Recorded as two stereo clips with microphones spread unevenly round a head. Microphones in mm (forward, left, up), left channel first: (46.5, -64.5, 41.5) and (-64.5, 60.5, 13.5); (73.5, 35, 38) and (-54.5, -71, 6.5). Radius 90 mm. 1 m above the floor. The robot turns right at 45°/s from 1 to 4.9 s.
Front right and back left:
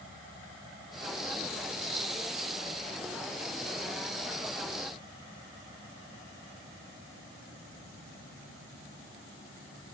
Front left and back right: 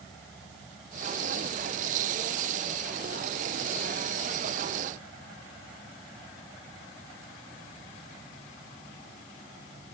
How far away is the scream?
No scream in this recording.